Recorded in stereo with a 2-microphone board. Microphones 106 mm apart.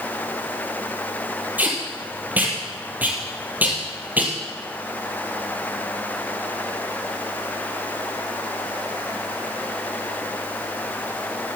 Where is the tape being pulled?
15° right (ahead or behind), 2.5 m.